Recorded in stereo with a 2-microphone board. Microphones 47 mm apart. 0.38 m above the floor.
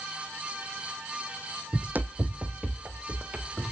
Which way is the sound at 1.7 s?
45° right (ahead or behind).